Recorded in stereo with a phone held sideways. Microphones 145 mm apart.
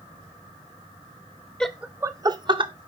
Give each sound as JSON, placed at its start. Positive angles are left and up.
{"t": 1.6, "sound": "laughter", "side_deg": 5, "distance_m": 0.5}